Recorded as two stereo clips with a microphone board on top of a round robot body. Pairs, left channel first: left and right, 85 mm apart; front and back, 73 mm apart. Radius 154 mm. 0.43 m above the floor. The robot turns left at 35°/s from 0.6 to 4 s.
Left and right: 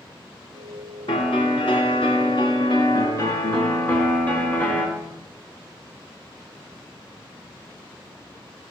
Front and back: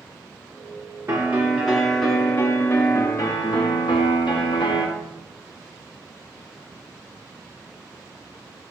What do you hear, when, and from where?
1.1 s a piano: 120° left, 2.5 m; by 4.9 s 15° left, 2.5 m